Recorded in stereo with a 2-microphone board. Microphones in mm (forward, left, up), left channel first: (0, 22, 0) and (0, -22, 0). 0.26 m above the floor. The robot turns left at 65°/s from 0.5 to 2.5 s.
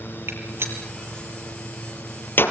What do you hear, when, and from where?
0.3 s a gunshot: 70° right (ahead or behind), 5.5 m; by 2.5 s 55° left (ahead or behind), 5.5 m